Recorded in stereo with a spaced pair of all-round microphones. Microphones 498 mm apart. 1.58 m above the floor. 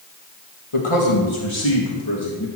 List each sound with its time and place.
0.7 s a man speaking: 80° left, 2 m; by 2.5 s 45° left (ahead or behind), 2.5 m